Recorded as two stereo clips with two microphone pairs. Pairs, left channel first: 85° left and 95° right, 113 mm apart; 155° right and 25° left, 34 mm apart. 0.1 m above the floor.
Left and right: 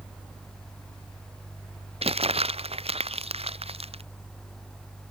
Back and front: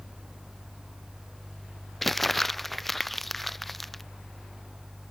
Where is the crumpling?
70° right.